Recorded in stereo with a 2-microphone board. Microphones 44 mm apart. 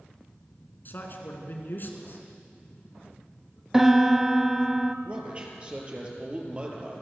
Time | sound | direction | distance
0.8 | a man speaking | 50° left (ahead or behind) | 3 m
3.7 | a piano | 10° right (ahead or behind) | 0.7 m
5.0 | a man speaking | 25° right (ahead or behind) | 4.5 m